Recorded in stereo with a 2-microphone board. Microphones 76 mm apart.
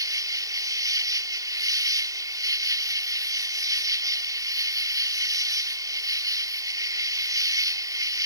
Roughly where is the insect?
Right.